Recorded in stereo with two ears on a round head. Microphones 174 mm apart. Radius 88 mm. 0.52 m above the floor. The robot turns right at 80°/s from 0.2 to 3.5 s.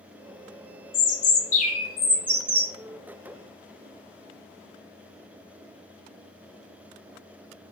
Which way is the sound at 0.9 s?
85° left.